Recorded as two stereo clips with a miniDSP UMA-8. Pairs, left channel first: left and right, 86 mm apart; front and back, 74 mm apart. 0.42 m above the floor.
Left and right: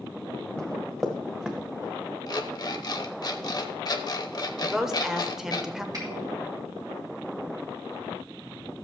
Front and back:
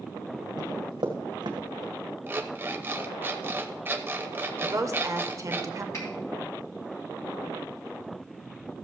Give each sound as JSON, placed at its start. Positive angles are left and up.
{"t": 0.6, "sound": "running footsteps", "azimuth_deg": 170, "distance_m": 1.7}
{"t": 2.3, "sound": "an alarm clock", "azimuth_deg": 120, "distance_m": 0.9}
{"t": 4.6, "sound": "a woman speaking", "azimuth_deg": -170, "distance_m": 1.0}
{"t": 5.9, "sound": "a finger snap", "azimuth_deg": -45, "distance_m": 3.0}